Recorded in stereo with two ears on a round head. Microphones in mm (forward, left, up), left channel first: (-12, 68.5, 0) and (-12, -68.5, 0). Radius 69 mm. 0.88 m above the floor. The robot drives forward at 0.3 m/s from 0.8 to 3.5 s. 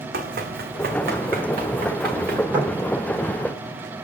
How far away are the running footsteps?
About 2.5 m.